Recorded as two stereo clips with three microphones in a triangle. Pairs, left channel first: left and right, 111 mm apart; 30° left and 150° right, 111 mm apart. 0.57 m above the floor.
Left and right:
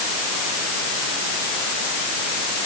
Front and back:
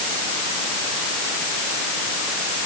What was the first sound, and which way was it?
Only background noise.